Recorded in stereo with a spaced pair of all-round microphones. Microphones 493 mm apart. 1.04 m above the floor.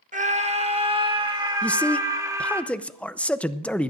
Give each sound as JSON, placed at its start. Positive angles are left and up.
{"t": 0.1, "sound": "a scream", "side_deg": -15, "distance_m": 1.3}
{"t": 1.6, "sound": "a man speaking", "side_deg": 5, "distance_m": 0.6}